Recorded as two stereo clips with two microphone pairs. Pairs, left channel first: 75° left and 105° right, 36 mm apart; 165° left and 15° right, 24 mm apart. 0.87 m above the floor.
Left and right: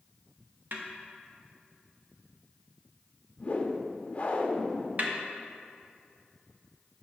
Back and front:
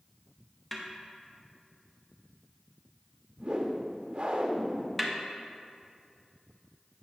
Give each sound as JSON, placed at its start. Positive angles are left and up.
{"t": 0.7, "sound": "a snare drum", "azimuth_deg": -105, "distance_m": 1.0}
{"t": 3.4, "sound": "a whoosh", "azimuth_deg": 25, "distance_m": 0.7}
{"t": 5.0, "sound": "a snare drum", "azimuth_deg": -105, "distance_m": 0.8}